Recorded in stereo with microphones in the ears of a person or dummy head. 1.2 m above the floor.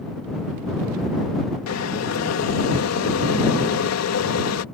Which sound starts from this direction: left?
Boiling, at 1.7 s.